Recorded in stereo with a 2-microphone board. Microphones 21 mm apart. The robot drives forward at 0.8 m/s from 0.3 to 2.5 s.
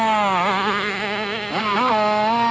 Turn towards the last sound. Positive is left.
turn(degrees=0)  # may be behind; listen again after turning